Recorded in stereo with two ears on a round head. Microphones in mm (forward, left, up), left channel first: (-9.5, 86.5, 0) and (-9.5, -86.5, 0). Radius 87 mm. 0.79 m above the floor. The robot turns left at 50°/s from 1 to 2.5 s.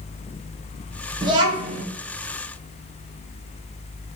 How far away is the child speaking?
About 0.6 m.